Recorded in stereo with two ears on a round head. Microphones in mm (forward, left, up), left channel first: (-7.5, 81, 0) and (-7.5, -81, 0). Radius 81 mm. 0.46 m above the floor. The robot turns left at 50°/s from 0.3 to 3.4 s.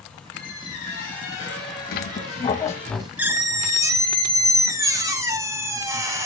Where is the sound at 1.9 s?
55° left, 0.8 m; by 6.3 s 20° right, 0.8 m.